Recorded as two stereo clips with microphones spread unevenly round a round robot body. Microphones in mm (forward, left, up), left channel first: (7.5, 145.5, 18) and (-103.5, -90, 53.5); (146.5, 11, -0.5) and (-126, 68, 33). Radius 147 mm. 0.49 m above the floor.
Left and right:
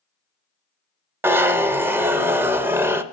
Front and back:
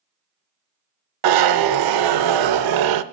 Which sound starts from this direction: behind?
A zipper, at 1.2 s.